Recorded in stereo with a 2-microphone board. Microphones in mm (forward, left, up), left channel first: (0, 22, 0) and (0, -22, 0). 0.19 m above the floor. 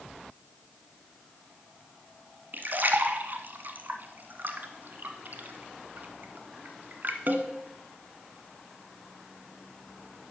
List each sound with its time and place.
2.5 s a splash: 50° right (ahead or behind), 1.0 m